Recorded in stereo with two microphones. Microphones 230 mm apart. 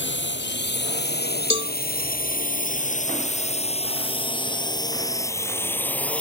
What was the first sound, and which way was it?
A drone, 55° left (ahead or behind).